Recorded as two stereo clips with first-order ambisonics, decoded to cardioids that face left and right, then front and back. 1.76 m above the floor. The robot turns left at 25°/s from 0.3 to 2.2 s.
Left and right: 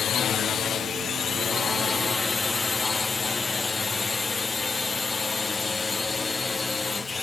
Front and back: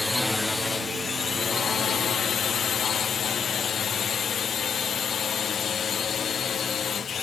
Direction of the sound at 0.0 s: 75° left.